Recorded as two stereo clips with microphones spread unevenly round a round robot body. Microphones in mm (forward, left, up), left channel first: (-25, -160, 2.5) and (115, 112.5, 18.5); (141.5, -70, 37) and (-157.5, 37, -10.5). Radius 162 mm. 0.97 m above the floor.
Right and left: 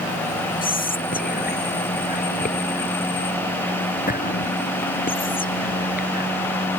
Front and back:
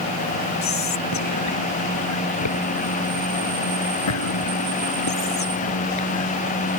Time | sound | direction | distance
0.6 | whispering | 55° right | ?